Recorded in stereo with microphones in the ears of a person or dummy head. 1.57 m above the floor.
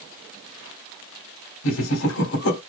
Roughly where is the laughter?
Left.